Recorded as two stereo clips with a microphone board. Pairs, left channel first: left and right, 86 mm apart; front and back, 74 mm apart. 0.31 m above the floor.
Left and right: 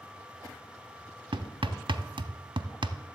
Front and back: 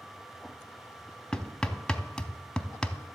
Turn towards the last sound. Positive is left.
turn(degrees=-80)